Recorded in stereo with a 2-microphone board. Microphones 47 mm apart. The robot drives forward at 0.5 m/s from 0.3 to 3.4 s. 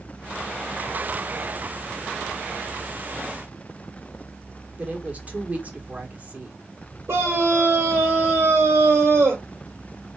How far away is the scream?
About 2 m.